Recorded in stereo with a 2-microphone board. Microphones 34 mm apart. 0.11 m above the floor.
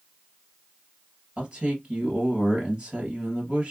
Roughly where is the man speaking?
Right.